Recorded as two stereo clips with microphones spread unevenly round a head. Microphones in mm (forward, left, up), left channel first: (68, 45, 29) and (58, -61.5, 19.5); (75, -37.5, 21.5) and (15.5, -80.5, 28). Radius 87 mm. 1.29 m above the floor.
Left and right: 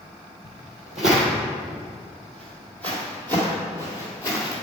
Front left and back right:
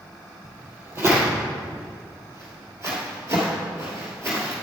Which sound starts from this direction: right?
Footsteps, at 0.4 s.